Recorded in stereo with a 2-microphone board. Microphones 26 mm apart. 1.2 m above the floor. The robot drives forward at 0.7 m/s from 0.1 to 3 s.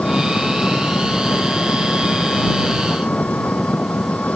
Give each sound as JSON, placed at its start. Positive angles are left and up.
{"t": 0.0, "sound": "an engine running", "side_deg": 80}